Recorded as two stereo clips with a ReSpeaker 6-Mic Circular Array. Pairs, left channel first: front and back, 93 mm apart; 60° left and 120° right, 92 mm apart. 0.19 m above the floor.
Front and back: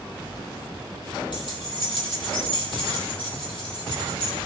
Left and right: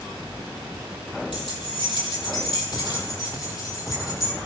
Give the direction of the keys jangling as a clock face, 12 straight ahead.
11 o'clock.